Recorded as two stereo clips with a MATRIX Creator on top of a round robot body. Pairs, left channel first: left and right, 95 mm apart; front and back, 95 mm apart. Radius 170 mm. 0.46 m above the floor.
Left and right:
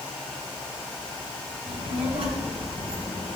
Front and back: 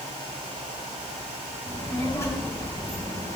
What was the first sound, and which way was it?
A child speaking, 70° right.